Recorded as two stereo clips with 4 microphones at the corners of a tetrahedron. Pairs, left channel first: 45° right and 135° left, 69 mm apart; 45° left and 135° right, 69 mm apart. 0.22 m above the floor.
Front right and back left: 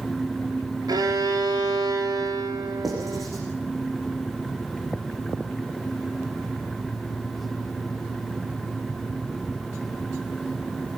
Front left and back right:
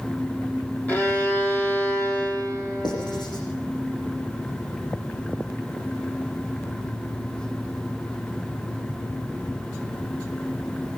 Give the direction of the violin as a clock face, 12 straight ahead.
8 o'clock.